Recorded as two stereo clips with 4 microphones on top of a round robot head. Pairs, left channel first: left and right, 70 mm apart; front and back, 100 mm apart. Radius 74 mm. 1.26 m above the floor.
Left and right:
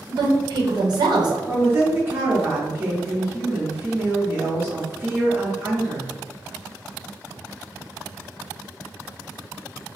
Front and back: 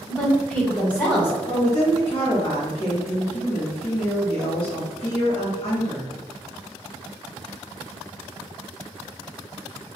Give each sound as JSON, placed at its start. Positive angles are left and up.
{"t": 0.1, "sound": "a woman speaking", "azimuth_deg": -80, "distance_m": 1.2}
{"t": 1.5, "sound": "a woman speaking", "azimuth_deg": -35, "distance_m": 1.4}